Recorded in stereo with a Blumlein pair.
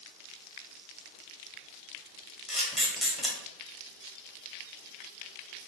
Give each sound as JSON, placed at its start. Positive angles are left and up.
{"t": 2.5, "sound": "a camera shutter", "azimuth_deg": 5, "distance_m": 1.4}